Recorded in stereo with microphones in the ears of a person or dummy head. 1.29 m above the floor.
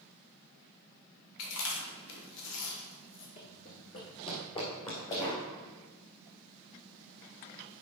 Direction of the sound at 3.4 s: 25° left (ahead or behind).